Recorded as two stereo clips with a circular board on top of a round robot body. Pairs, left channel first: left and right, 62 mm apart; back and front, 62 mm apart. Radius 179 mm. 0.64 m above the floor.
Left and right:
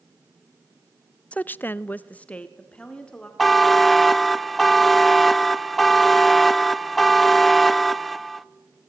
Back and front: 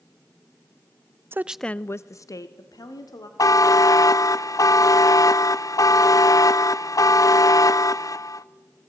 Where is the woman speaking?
30° left, 0.6 m; by 3.3 s 165° left, 2 m.